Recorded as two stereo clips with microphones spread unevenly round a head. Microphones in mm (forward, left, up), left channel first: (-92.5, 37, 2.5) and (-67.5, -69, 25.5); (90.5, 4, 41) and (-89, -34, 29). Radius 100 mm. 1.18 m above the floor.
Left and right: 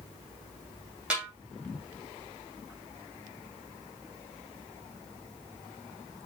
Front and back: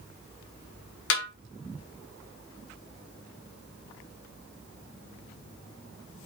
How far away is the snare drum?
About 2.5 m.